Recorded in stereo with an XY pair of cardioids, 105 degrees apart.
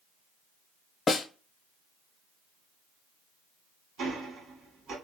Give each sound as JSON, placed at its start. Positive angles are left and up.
{"t": 1.1, "sound": "a snare drum", "azimuth_deg": 40, "distance_m": 0.8}
{"t": 4.0, "sound": "ticking", "azimuth_deg": -65, "distance_m": 1.6}